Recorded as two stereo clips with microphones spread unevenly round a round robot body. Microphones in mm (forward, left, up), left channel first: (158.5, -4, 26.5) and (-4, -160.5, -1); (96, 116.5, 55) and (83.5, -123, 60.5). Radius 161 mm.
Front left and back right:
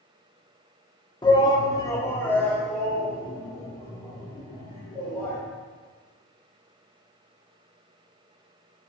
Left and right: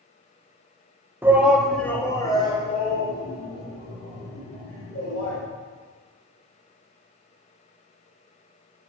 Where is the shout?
20° right, 1.2 m; by 5.4 s 145° left, 3.5 m.